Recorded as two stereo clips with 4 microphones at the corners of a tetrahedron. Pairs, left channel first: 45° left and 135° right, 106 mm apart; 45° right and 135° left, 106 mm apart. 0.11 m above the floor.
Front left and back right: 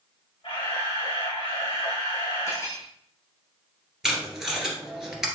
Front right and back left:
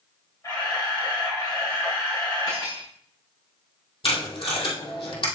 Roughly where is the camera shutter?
Ahead.